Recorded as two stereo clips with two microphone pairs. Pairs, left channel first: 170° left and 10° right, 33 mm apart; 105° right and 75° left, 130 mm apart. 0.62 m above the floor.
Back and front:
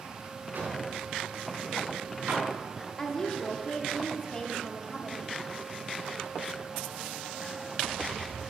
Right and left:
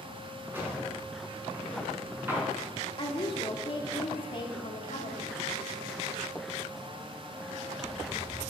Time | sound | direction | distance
0.5 | a drawer | straight ahead | 3.5 m
3.0 | a woman speaking | 130° right | 1.5 m